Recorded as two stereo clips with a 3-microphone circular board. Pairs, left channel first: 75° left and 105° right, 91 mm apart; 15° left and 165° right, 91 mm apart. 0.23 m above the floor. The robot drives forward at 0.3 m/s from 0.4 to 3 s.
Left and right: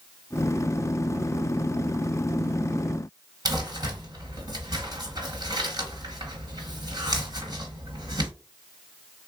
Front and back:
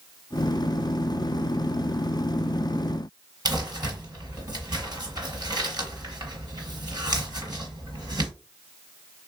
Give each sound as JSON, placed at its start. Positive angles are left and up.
{"t": 3.5, "sound": "crumpling", "azimuth_deg": -135, "distance_m": 1.8}